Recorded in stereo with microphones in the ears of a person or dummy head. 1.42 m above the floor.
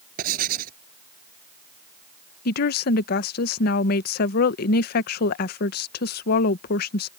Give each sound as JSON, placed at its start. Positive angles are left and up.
{"t": 0.2, "sound": "writing", "side_deg": -50}
{"t": 2.5, "sound": "a woman speaking", "side_deg": 50}